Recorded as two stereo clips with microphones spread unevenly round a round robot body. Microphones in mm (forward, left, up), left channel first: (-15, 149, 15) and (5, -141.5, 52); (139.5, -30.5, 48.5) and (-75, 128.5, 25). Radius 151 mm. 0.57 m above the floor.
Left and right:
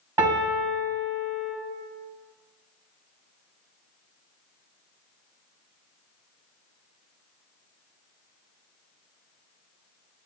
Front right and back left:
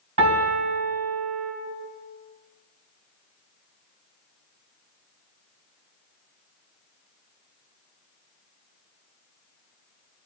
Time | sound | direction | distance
0.2 | a piano | 165° right | 2.0 m